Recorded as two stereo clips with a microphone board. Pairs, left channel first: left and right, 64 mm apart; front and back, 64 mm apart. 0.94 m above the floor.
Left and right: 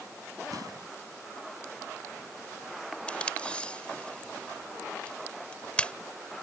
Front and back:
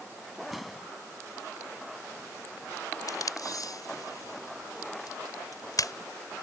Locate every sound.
0.5 s an explosion: 95° right
3.1 s tape being pulled: 15° left